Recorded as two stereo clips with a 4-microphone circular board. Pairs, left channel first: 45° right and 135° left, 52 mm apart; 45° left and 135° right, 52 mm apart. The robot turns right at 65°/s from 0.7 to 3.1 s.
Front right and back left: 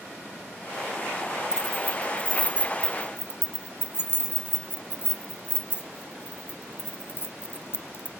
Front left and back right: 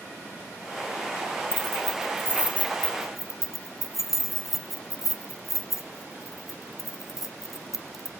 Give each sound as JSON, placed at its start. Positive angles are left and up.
{"t": 1.5, "sound": "keys jangling", "azimuth_deg": -155, "distance_m": 1.0}